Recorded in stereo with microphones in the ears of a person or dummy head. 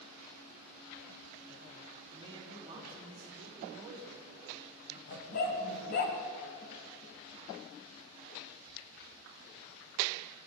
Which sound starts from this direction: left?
A dog barking, at 5.1 s.